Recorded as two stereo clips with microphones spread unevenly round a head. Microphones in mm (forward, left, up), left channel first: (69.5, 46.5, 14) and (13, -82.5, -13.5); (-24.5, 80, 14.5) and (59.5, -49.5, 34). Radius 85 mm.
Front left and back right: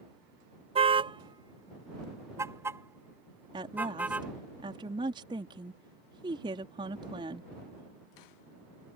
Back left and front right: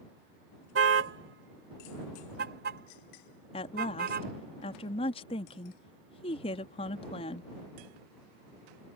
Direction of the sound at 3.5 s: Straight behind.